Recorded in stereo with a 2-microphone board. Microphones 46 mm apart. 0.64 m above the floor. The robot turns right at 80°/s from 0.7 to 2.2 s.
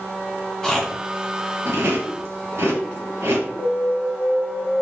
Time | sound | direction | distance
0.6 | chewing | 15° left (ahead or behind) | 3.5 m
3.6 | an alarm | 10° left (ahead or behind) | 1.1 m